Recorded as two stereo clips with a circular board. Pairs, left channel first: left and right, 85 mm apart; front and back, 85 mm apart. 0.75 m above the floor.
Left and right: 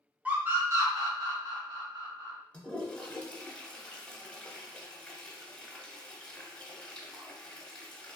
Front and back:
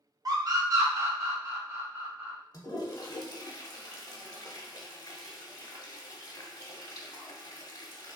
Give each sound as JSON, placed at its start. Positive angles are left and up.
{"t": 0.2, "sound": "a scream", "azimuth_deg": -160, "distance_m": 0.8}
{"t": 2.5, "sound": "a toilet flushing", "azimuth_deg": 15, "distance_m": 0.7}